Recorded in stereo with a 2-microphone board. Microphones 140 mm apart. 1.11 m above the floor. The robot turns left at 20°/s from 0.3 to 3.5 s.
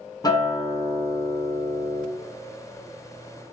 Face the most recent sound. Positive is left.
turn(degrees=85)